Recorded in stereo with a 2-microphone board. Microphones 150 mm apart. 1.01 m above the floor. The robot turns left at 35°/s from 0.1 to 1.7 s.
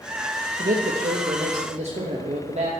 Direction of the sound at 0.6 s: 90° right.